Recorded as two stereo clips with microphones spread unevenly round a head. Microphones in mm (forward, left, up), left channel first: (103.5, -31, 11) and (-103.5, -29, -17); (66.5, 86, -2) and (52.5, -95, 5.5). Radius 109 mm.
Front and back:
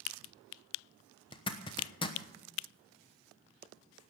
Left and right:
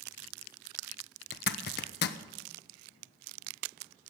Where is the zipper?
70° left, 1.0 m.